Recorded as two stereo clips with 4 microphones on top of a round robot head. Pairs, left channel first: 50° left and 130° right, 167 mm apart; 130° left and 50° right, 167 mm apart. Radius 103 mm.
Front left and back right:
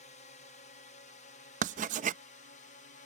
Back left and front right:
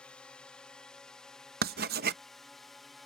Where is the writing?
80° right.